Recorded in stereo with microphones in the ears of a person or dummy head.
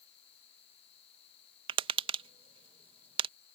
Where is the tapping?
30° right (ahead or behind).